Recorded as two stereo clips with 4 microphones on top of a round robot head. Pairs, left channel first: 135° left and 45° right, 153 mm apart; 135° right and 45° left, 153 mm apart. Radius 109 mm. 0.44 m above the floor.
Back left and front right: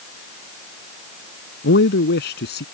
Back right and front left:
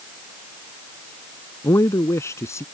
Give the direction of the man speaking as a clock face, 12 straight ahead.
7 o'clock.